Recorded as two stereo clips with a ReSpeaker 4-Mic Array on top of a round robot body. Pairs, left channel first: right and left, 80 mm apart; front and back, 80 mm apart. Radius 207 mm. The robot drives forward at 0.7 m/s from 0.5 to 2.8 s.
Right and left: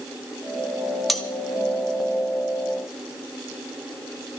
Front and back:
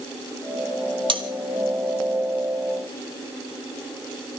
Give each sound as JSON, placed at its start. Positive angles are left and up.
{"t": 1.1, "sound": "cutlery clinking", "azimuth_deg": 180, "distance_m": 1.6}